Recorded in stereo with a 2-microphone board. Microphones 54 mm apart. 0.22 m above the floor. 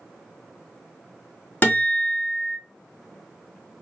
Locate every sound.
1.6 s a guitar: 30° left (ahead or behind), 1.5 m